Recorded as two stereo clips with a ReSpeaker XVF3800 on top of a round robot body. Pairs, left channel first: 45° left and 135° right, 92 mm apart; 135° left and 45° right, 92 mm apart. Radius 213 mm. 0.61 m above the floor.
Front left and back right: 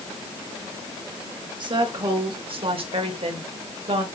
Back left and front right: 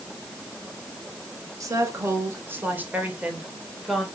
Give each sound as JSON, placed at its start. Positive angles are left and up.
{"t": 1.6, "sound": "a woman speaking", "azimuth_deg": -100, "distance_m": 3.0}